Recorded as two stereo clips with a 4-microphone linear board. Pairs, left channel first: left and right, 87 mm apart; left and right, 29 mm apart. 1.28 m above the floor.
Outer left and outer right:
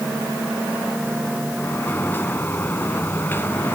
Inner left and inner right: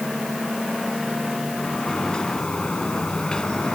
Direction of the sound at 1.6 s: 25° left (ahead or behind).